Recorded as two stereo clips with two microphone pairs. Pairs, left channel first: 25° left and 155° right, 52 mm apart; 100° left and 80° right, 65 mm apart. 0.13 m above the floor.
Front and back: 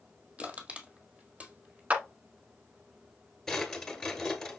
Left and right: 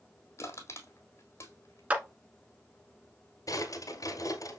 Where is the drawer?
105° left, 1.3 m.